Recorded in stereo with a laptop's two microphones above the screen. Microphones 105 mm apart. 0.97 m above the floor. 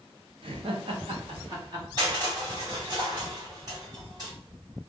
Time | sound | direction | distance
0.4 | laughter | 55° right (ahead or behind) | 0.8 m
2.0 | crushing | 40° right (ahead or behind) | 1.6 m